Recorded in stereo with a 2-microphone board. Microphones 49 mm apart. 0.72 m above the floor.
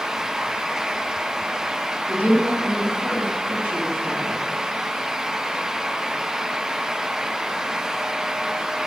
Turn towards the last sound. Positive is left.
turn(degrees=-40)  # may be behind; listen again after turning